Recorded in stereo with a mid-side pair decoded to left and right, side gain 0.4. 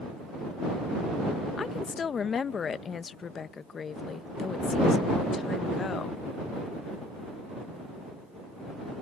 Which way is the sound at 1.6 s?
50° left.